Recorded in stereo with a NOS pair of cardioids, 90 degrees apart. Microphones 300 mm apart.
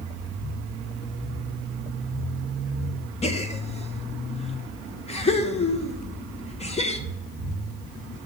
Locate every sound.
3.2 s a gasp: 20° left, 1.0 m